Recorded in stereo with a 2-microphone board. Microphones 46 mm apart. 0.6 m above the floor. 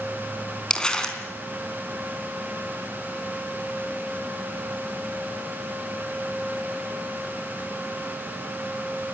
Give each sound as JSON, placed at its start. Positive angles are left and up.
{"t": 0.7, "sound": "crumpling", "side_deg": 15, "distance_m": 3.5}